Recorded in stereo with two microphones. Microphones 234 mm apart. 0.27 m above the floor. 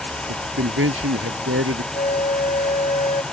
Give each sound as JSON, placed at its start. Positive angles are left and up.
{"t": 0.3, "sound": "a man speaking", "side_deg": -65}
{"t": 1.9, "sound": "a flute", "side_deg": 30}